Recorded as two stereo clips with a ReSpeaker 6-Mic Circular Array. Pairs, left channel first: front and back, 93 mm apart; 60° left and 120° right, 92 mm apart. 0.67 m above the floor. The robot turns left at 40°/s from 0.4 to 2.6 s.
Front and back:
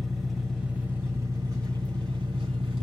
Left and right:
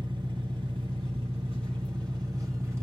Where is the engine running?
90° right, 1.5 m; by 2.8 s straight behind, 1.5 m.